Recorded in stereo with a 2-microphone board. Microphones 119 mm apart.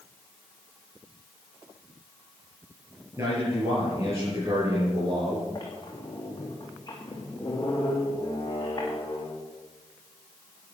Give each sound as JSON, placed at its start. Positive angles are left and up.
{"t": 3.2, "sound": "a man speaking", "side_deg": -25, "distance_m": 6.0}
{"t": 5.5, "sound": "a squeak", "side_deg": 35, "distance_m": 4.0}